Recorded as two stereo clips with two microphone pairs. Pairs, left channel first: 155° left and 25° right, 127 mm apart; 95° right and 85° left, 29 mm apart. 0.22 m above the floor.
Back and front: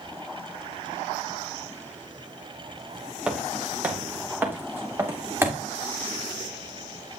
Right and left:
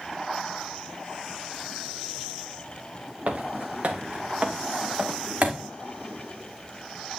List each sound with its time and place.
3.3 s footsteps: 60° left, 1.8 m; by 5.6 s 50° left, 4 m